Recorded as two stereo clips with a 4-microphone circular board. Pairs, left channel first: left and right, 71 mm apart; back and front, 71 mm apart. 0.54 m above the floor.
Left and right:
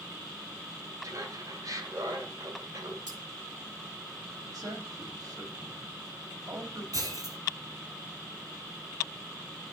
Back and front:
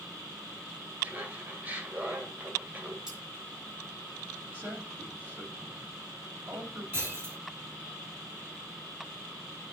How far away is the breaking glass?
About 4 m.